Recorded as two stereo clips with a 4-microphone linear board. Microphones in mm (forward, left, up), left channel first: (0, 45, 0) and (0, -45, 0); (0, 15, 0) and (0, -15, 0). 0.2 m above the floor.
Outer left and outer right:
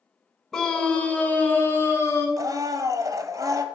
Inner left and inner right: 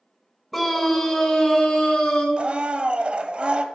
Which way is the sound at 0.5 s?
5° left (ahead or behind).